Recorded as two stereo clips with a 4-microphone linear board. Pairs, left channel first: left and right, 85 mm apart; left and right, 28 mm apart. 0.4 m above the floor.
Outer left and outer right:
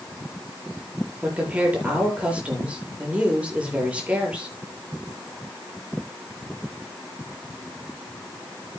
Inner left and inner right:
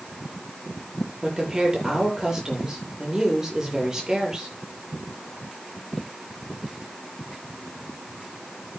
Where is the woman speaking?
15° right (ahead or behind), 8.5 m.